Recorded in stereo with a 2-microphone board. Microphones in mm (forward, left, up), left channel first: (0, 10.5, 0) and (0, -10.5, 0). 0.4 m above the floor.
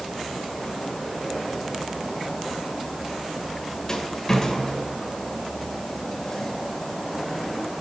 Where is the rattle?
30° left (ahead or behind), 1.2 m.